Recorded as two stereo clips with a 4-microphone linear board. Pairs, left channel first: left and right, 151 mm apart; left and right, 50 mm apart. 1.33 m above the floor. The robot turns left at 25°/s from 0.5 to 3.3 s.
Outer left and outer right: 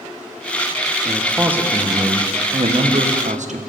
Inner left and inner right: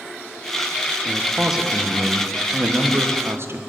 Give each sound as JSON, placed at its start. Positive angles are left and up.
{"t": 1.1, "sound": "a man speaking", "azimuth_deg": 0, "distance_m": 1.1}